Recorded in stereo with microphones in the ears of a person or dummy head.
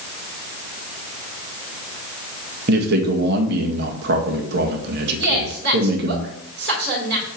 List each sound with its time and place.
2.7 s a man speaking: 60° right (ahead or behind), 1.7 m
5.2 s a woman speaking: 60° right (ahead or behind), 3 m